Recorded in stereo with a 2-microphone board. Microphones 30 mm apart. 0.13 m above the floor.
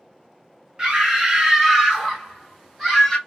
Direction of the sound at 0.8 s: 20° right (ahead or behind).